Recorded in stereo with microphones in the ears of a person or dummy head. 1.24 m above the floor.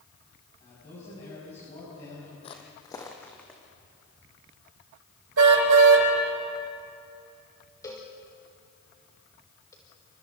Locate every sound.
0.6 s a man speaking: 30° left (ahead or behind), 8 m
2.4 s footsteps: 30° left (ahead or behind), 1.9 m; by 3.6 s 5° left (ahead or behind), 3 m
5.4 s a car horn: 75° right (ahead or behind), 3 m
7.8 s a cowbell: 15° left (ahead or behind), 2.5 m